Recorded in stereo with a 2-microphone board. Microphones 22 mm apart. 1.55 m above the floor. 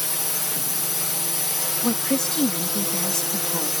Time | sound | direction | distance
0.0 | a drone | 10° right (ahead or behind) | ?
1.8 | a woman speaking | 40° left (ahead or behind) | ?